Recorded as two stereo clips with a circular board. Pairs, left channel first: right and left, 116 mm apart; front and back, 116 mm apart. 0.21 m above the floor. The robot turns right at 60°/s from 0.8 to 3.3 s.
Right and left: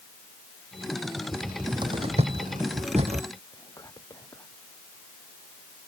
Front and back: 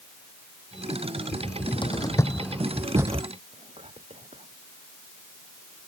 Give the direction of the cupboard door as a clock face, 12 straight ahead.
12 o'clock.